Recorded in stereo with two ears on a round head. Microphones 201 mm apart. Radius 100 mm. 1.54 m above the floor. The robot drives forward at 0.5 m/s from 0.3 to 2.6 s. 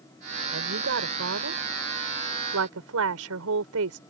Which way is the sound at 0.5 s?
60° right (ahead or behind).